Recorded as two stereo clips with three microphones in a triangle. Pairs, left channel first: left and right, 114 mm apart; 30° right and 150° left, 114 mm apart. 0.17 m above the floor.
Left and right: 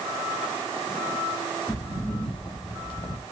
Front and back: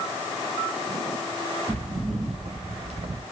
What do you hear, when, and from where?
1.7 s footsteps: 160° left, 2.5 m; by 3.2 s 130° left, 0.8 m